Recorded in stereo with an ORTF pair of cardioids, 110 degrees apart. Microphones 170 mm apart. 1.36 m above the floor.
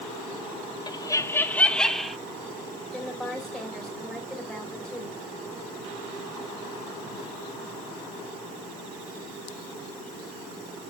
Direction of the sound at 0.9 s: 25° left.